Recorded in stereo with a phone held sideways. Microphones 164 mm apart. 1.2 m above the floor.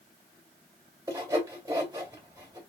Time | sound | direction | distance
1.1 | sawing | 20° right (ahead or behind) | 2.5 m